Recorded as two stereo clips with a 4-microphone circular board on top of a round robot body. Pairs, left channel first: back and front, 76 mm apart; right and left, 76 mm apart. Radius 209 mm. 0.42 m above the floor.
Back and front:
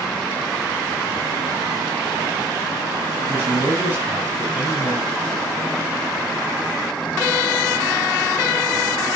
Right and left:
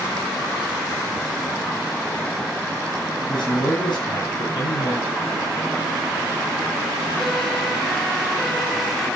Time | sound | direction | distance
3.2 | a man speaking | 115° right | 8 m